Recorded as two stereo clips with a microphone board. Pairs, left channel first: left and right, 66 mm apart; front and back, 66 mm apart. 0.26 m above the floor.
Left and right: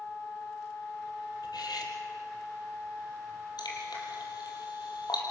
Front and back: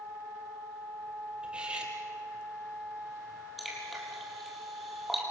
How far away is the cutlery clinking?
About 4 m.